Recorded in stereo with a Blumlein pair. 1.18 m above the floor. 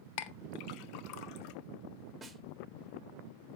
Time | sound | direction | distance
0.2 | a clink | 45° left | 0.9 m
2.2 | a snare drum | 10° right | 1.4 m